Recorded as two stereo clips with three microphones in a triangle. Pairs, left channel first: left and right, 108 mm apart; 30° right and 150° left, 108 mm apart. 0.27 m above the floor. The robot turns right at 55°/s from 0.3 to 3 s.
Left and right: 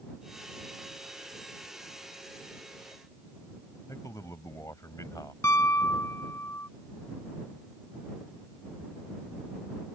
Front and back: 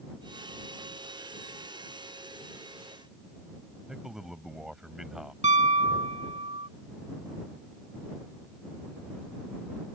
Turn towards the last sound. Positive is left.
turn(degrees=155)